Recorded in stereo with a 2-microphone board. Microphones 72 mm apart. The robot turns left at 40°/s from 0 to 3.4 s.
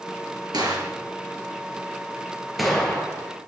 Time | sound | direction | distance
0.5 | a gunshot | 80° right | 4 m